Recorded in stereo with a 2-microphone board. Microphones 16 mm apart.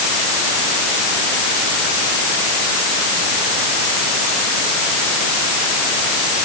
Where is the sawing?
I don't hear sawing.